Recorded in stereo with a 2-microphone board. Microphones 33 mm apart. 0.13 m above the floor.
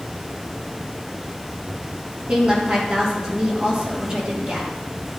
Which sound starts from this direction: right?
A woman speaking, at 2.3 s.